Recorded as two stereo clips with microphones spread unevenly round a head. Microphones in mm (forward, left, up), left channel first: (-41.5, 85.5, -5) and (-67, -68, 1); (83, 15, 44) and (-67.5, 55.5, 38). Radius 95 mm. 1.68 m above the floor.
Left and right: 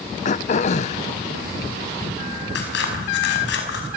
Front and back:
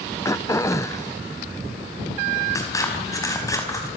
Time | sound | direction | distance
0.2 | throat clearing | 50° left | 0.7 m
2.5 | scissors | 55° left | 5 m